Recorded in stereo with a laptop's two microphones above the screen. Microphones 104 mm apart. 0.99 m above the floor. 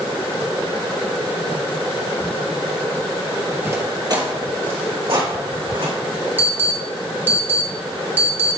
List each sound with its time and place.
3.6 s footsteps: 20° right (ahead or behind), 1.2 m; by 5.9 s 60° right (ahead or behind), 4.5 m
6.4 s an alarm: 15° right (ahead or behind), 1.1 m